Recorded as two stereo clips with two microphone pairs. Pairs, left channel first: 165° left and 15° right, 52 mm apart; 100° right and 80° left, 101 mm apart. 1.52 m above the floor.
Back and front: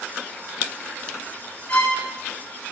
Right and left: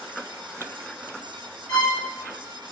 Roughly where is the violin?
Behind right.